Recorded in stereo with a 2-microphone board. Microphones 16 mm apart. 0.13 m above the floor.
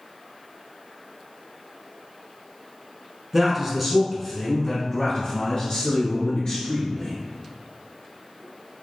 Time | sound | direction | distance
3.3 | a man speaking | 20° right (ahead or behind) | 1.2 m